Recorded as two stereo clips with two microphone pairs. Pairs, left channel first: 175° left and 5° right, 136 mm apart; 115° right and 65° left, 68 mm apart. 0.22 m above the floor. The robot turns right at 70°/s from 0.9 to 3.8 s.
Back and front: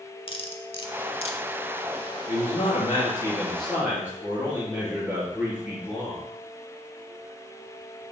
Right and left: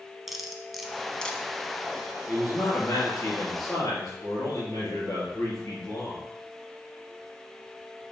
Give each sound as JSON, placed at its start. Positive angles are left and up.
{"t": 0.3, "sound": "cutlery clinking", "azimuth_deg": 150, "distance_m": 0.8}
{"t": 2.3, "sound": "a man speaking", "azimuth_deg": 175, "distance_m": 3.5}